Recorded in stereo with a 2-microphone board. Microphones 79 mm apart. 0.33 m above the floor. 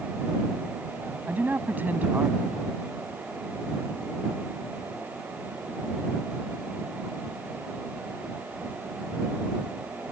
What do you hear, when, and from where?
1.3 s a man speaking: 25° right (ahead or behind)